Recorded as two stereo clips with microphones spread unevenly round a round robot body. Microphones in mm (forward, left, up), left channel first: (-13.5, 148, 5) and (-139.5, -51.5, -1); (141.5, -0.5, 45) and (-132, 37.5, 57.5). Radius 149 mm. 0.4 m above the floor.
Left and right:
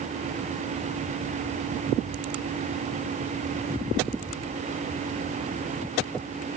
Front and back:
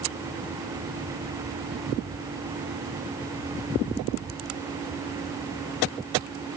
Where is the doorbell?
I don't hear a doorbell.